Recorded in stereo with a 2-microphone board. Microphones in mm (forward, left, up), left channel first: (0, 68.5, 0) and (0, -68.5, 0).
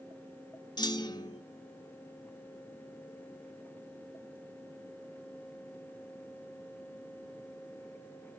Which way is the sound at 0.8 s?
30° left (ahead or behind).